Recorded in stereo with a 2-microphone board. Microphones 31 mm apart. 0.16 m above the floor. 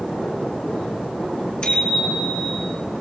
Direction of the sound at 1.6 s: 35° left (ahead or behind).